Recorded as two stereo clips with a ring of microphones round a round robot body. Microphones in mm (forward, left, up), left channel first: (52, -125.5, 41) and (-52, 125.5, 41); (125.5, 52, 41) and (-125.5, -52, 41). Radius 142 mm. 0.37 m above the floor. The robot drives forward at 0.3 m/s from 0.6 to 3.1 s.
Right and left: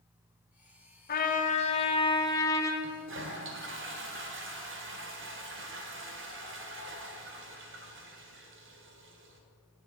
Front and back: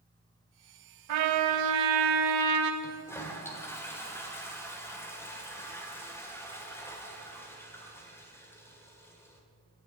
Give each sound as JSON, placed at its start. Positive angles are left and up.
{"t": 1.1, "sound": "a trumpet", "azimuth_deg": -125, "distance_m": 0.7}
{"t": 2.8, "sound": "a toilet flushing", "azimuth_deg": 95, "distance_m": 1.5}